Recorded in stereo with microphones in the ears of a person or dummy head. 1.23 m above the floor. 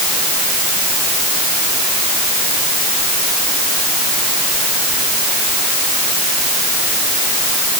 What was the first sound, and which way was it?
Only background noise.